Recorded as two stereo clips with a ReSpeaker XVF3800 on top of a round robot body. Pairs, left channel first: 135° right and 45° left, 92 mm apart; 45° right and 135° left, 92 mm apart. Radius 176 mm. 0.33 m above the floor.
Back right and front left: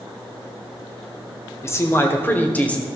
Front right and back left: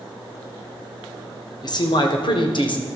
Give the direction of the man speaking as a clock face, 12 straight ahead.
3 o'clock.